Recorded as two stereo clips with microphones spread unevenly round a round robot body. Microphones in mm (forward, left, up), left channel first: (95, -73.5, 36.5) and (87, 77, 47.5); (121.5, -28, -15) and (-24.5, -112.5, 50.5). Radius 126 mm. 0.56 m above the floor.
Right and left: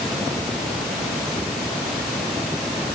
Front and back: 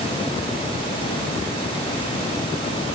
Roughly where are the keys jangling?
I don't hear keys jangling.